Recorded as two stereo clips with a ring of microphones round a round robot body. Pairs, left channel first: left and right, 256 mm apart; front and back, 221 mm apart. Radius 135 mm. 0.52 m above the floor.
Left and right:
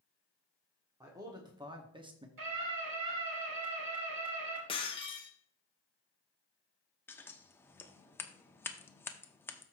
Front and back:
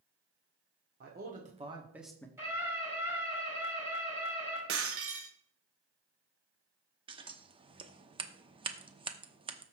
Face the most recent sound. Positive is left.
turn(degrees=160)